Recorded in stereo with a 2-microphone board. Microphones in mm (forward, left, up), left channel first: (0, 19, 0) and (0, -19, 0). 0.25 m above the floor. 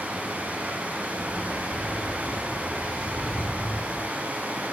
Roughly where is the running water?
Right.